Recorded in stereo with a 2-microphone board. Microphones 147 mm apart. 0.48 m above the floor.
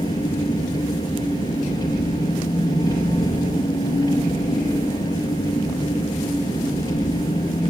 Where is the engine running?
30° left (ahead or behind), 2.5 m.